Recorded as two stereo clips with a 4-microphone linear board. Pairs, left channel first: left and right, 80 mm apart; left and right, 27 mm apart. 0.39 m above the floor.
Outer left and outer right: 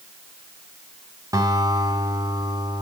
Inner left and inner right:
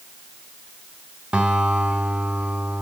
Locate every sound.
1.3 s a guitar: 50° right (ahead or behind), 3 m